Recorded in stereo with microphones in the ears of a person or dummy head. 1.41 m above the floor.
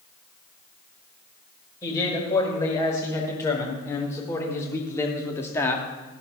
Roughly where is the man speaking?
Left.